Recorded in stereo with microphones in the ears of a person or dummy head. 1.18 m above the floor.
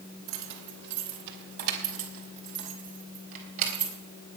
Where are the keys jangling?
70° right (ahead or behind), 3 m; by 3.9 s 40° right (ahead or behind), 4.5 m.